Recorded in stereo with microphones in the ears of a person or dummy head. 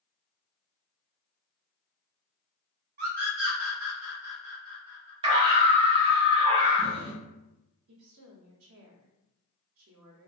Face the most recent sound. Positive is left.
turn(degrees=-75)  # may be behind; listen again after turning